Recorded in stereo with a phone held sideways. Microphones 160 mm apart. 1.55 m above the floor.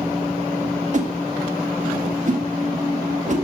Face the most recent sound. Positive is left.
turn(degrees=-50)  # may be behind; listen again after turning